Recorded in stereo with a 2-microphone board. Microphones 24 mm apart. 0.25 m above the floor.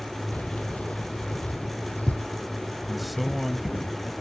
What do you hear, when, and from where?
0.3 s keys jangling: 70° left (ahead or behind); by 3.9 s 80° left
2.9 s a man speaking: 5° right (ahead or behind)